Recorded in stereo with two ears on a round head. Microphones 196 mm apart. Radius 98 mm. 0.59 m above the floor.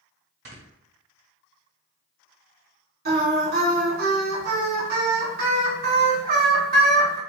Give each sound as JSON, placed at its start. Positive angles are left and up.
{"t": 0.5, "sound": "snoring", "side_deg": -50, "distance_m": 1.6}
{"t": 3.0, "sound": "singing", "side_deg": -45, "distance_m": 1.9}